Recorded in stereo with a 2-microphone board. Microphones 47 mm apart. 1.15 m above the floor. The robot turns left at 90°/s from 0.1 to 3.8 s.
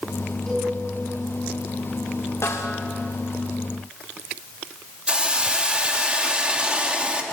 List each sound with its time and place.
0.5 s a cowbell: 10° left (ahead or behind), 8.5 m; by 0.7 s 15° right (ahead or behind), 8.5 m
2.4 s a snare drum: 100° left, 2.5 m; by 2.8 s 70° left, 2.5 m
5.1 s a hiss: 20° right (ahead or behind), 2 m